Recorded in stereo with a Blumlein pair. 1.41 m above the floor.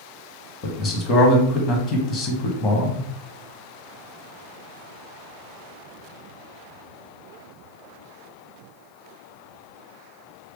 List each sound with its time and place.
0.6 s a man speaking: 25° left, 1.0 m